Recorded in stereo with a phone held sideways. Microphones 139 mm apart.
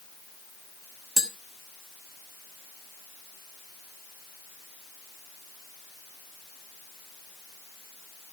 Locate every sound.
1.2 s tapping: centre (ahead or behind), 1.3 m